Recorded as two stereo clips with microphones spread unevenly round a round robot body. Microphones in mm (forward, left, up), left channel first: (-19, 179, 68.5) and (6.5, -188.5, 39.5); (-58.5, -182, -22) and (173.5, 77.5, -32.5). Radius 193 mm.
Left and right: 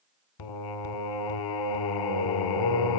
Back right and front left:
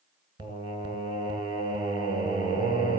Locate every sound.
0.4 s singing: 125° left, 1.6 m